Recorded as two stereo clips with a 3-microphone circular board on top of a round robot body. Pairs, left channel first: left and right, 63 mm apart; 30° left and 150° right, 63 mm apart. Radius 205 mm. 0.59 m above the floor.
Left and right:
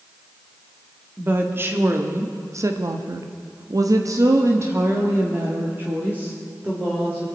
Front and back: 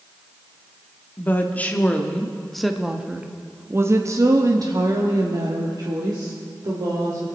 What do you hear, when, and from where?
1.2 s a woman speaking: 30° right, 1.9 m; by 7.3 s 160° right, 3 m